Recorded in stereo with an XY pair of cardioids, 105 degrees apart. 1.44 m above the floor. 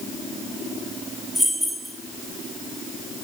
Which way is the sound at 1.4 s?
10° right.